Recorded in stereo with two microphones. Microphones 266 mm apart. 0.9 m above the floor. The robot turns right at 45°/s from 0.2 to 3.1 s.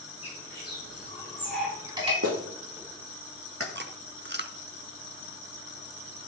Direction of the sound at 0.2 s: 60° left (ahead or behind).